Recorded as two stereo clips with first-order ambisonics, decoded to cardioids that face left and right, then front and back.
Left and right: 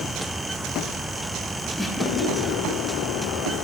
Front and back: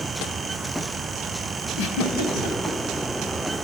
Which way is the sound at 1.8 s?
Straight ahead.